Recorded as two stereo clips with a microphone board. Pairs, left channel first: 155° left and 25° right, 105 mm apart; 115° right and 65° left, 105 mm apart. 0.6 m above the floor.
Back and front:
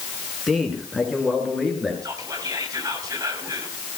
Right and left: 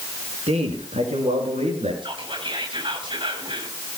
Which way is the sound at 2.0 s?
30° left.